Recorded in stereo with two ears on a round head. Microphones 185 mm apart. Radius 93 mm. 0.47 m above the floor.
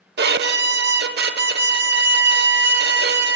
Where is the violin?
50° right (ahead or behind), 0.9 m.